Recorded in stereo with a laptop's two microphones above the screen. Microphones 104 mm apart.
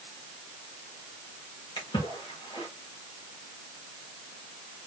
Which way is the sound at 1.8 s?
55° left (ahead or behind).